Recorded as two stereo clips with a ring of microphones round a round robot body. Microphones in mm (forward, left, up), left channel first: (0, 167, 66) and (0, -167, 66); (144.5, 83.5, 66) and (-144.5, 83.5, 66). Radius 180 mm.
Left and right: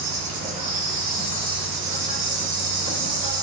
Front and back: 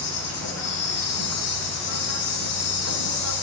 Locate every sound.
0.0 s an insect: 25° right, 1.4 m